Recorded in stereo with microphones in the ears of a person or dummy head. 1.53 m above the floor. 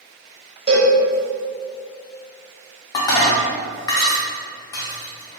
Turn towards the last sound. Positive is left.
turn(degrees=20)  # may be behind; listen again after turning